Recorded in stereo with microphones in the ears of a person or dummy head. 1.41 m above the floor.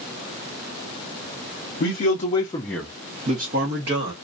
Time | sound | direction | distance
1.8 | a man speaking | 50° left (ahead or behind) | 0.8 m